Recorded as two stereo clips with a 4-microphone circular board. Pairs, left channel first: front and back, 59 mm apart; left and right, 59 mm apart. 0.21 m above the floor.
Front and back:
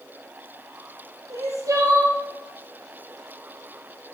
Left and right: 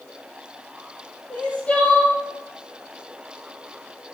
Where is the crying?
160° left, 1.9 m.